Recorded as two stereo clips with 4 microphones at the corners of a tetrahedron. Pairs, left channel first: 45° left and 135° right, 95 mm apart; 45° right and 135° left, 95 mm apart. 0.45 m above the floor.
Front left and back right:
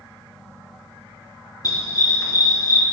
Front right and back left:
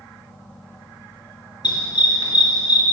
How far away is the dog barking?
About 2 m.